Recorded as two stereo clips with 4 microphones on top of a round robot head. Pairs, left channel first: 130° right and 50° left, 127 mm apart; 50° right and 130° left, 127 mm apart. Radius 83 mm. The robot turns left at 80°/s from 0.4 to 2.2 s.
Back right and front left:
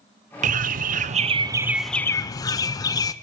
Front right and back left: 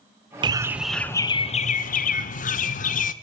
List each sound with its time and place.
0.4 s a bird: 75° left, 0.6 m; by 3.1 s 65° right, 0.6 m